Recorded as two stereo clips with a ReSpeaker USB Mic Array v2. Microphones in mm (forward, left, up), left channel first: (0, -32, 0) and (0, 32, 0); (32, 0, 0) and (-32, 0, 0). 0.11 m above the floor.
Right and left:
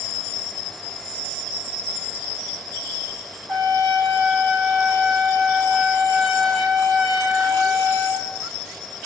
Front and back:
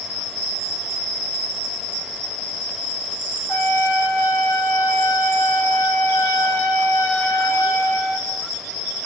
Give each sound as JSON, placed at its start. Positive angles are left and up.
{"t": 3.5, "sound": "a trumpet", "azimuth_deg": 10, "distance_m": 6.0}